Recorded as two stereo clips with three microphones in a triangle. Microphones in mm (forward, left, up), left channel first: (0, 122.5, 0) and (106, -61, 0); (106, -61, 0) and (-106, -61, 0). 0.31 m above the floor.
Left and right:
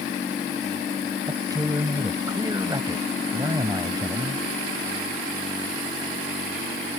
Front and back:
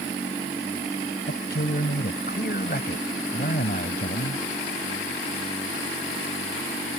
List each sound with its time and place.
1.3 s a man speaking: 5° left